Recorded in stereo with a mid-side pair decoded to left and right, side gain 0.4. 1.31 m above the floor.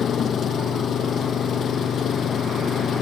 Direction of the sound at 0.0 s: 60° left.